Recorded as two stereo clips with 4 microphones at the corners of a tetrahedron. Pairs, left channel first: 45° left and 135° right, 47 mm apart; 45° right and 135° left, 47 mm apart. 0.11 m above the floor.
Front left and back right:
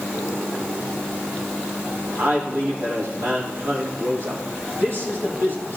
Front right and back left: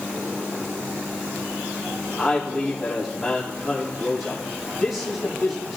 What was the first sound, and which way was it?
A man speaking, 145° right.